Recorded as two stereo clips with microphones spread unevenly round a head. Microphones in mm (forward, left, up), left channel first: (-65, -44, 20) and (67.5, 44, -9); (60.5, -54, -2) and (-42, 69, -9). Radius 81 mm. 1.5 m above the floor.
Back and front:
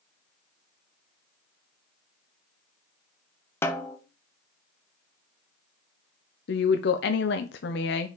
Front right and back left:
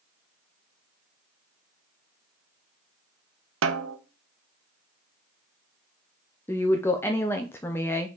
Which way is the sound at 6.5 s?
125° right.